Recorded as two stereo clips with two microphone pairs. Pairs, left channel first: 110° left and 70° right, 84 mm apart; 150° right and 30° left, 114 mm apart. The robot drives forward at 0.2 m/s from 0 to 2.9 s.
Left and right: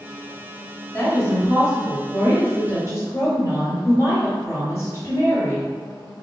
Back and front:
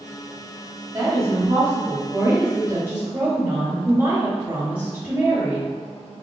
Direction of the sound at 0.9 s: 75° left.